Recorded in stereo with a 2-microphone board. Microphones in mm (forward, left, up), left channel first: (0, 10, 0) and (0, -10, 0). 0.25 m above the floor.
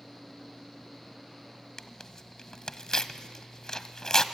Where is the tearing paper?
35° left (ahead or behind), 1.0 m.